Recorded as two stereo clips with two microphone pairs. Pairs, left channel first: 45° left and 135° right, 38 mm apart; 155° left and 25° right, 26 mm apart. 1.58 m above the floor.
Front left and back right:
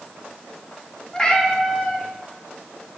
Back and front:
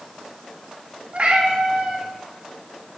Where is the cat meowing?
15° right, 1.4 m.